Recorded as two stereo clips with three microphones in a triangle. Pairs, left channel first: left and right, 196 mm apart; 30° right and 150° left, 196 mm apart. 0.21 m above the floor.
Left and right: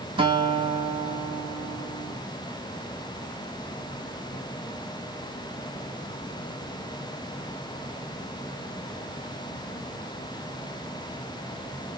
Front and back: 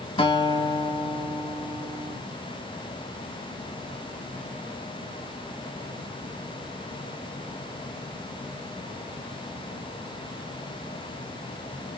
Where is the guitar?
60° right, 0.5 m.